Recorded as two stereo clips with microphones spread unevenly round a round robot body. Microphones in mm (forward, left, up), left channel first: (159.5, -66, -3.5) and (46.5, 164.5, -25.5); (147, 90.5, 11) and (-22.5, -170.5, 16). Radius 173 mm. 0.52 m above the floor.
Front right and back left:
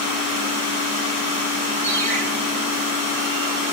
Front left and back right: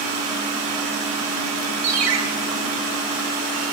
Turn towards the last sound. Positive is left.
turn(degrees=-150)